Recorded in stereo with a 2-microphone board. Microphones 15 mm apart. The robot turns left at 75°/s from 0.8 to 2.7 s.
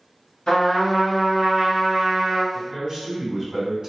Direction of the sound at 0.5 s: 70° left.